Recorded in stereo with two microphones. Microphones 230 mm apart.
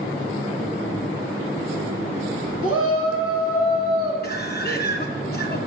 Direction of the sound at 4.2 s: 45° left (ahead or behind).